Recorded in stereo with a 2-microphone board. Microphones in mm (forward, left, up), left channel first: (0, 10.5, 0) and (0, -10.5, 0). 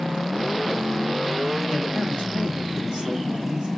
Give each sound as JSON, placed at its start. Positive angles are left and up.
{"t": 1.7, "sound": "a man speaking", "side_deg": -65, "distance_m": 1.3}